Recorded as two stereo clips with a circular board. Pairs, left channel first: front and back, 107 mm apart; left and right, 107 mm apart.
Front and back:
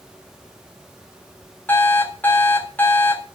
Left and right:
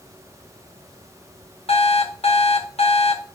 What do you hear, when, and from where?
1.7 s an alarm clock: 70° left, 2.0 m